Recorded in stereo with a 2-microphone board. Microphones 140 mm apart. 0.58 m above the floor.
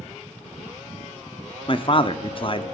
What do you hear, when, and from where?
1.7 s a man speaking: 40° left (ahead or behind), 0.7 m